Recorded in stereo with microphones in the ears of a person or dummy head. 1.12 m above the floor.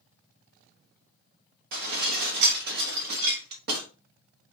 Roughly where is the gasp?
I don't hear a gasp.